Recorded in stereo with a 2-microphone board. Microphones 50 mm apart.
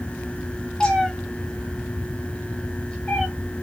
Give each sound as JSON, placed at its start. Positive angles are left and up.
{"t": 0.8, "sound": "a cat meowing", "side_deg": 15, "distance_m": 0.8}